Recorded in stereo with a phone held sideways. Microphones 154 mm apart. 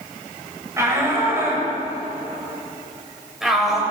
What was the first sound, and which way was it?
A shout, 20° right (ahead or behind).